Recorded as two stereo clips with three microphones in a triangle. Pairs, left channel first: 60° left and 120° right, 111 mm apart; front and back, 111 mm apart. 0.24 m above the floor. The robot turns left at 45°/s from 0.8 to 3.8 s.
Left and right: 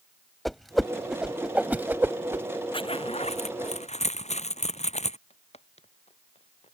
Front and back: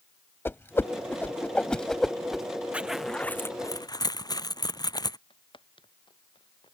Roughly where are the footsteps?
Ahead left.